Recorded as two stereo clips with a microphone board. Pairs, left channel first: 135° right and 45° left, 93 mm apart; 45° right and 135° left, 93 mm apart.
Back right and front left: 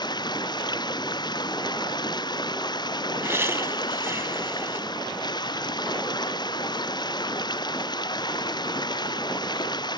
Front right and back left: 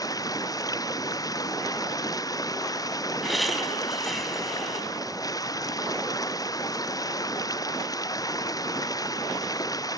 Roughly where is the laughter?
Ahead left.